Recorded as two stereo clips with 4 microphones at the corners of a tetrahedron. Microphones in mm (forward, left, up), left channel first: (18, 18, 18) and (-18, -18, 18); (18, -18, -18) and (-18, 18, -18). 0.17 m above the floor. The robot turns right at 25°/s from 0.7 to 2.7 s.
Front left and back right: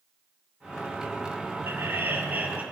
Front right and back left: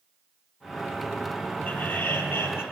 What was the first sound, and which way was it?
Laughter, 100° right.